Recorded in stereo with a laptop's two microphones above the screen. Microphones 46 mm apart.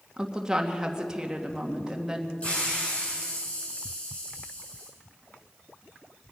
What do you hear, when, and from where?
0.2 s a woman speaking: 15° right (ahead or behind), 1.8 m
2.4 s a hiss: 30° left (ahead or behind), 4.5 m